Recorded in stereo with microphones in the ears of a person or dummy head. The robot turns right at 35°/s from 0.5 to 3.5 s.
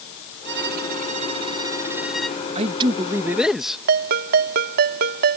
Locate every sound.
0.5 s a violin: 65° right; by 2.4 s 5° left
2.5 s a man speaking: 40° right; by 3.8 s 5° right
3.9 s a ringtone: 45° right (ahead or behind)